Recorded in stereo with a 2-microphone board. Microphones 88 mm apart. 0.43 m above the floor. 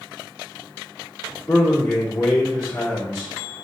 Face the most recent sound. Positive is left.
turn(degrees=20)  # may be behind; listen again after turning